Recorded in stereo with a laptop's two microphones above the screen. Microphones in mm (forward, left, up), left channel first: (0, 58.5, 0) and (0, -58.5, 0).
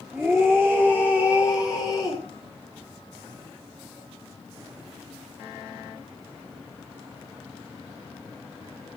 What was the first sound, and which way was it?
A scream, 5° right (ahead or behind).